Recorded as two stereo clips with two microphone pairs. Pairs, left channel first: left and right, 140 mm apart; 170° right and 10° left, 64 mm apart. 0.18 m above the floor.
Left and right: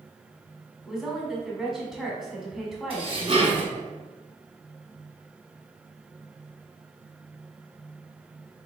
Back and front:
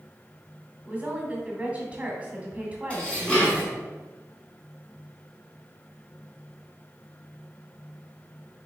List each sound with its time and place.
0.8 s a woman speaking: 5° right, 1.2 m
2.9 s dishes clattering: 105° right, 1.3 m